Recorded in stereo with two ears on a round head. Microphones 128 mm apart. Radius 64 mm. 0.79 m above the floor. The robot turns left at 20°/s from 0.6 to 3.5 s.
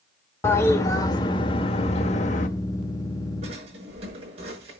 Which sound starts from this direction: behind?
A toilet flushing, at 0.4 s.